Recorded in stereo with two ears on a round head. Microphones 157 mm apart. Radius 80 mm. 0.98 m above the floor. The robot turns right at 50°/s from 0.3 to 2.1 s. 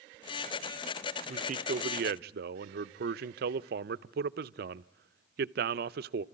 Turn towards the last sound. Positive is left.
turn(degrees=-95)